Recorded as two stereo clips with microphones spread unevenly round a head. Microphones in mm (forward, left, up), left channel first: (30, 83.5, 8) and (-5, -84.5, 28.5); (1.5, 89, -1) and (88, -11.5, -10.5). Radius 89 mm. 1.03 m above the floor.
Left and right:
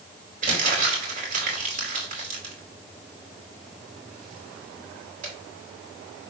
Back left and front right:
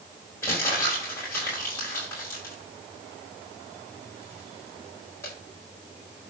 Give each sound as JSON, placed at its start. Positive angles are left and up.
{"t": 0.4, "sound": "crumpling", "azimuth_deg": -150, "distance_m": 4.0}